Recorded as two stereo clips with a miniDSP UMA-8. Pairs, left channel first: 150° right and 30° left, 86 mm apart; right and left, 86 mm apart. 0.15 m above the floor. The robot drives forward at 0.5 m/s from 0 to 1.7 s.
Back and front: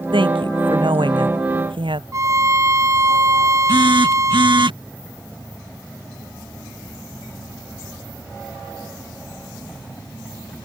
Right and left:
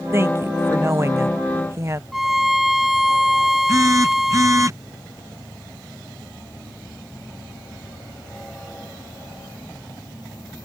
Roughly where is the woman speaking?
Ahead left.